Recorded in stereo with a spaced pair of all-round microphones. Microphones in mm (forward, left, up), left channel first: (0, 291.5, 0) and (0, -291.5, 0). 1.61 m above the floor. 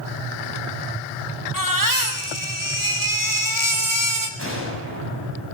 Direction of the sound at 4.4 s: 20° right (ahead or behind).